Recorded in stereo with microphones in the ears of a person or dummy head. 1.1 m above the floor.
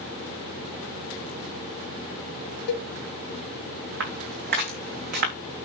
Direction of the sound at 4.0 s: 65° right (ahead or behind).